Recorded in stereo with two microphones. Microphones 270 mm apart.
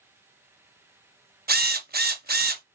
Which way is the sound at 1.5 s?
35° right (ahead or behind).